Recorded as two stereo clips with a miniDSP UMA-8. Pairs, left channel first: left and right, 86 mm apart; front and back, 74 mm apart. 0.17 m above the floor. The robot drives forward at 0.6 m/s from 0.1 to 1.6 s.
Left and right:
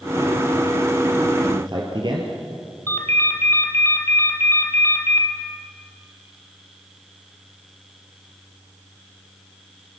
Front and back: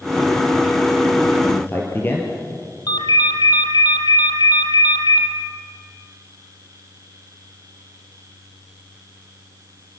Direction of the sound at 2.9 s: 25° left.